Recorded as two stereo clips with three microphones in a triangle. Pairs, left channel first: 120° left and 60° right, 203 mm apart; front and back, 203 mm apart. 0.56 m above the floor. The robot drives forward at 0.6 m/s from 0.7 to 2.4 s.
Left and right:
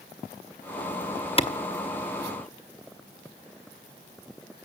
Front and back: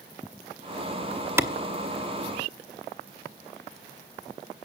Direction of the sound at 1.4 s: 115° left.